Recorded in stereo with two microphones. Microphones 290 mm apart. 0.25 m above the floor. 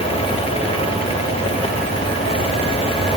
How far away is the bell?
I don't hear a bell.